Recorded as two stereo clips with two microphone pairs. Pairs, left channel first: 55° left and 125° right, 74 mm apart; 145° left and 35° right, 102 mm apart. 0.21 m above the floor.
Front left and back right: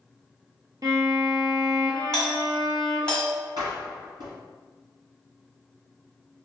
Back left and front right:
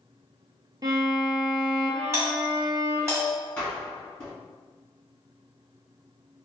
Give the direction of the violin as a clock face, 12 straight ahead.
3 o'clock.